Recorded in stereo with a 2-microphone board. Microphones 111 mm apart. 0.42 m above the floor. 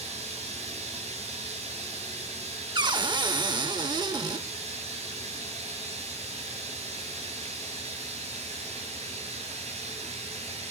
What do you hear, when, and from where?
0.0 s running water: 75° right (ahead or behind), 8 m
2.8 s a cupboard door: 40° right (ahead or behind), 0.7 m